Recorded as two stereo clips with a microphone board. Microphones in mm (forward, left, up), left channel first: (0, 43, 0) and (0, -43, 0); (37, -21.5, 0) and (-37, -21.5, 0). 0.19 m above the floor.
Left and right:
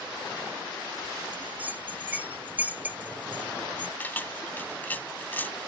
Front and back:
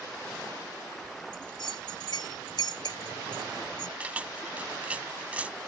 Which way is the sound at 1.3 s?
20° right.